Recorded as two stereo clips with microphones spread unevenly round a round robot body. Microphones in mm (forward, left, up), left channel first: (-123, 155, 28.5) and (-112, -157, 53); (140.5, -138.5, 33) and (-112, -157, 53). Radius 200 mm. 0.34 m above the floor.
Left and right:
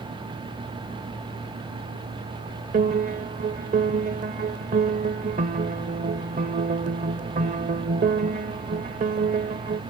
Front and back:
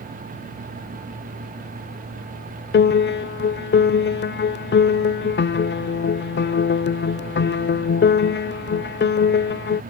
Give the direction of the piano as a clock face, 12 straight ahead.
1 o'clock.